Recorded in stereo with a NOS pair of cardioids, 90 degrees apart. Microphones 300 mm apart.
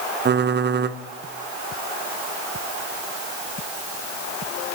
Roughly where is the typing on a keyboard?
Ahead right.